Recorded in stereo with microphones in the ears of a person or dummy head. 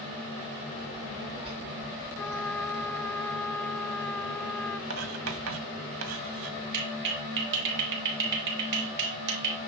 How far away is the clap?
About 3.5 m.